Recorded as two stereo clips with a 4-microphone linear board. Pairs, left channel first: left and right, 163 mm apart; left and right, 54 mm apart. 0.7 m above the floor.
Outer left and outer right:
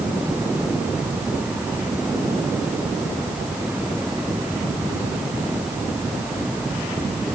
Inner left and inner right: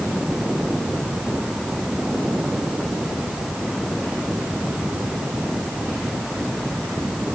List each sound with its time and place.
Only background noise.